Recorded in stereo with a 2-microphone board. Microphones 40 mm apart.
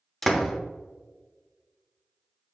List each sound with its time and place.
0.2 s a door slam: centre (ahead or behind), 0.8 m